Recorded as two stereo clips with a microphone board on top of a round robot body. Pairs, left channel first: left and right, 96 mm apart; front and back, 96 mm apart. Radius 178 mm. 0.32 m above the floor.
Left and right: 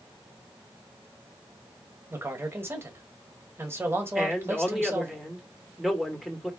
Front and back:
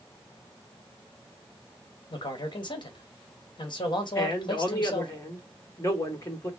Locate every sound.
2.1 s a man speaking: 30° right, 1.6 m
4.2 s a man speaking: straight ahead, 1.7 m